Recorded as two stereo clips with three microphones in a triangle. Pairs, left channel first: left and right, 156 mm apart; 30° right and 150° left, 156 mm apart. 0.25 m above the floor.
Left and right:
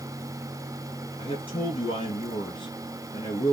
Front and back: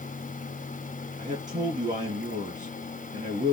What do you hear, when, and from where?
1.2 s a man speaking: 135° left, 3 m